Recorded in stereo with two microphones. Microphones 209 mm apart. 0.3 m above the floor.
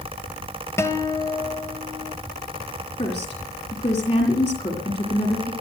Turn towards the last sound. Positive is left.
turn(degrees=35)  # may be behind; listen again after turning